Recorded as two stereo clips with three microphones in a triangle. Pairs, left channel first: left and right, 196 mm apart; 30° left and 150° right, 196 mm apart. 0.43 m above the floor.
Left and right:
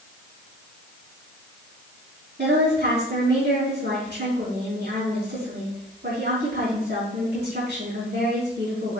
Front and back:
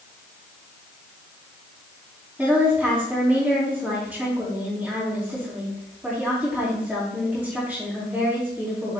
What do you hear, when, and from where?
2.4 s a woman speaking: 65° right, 3 m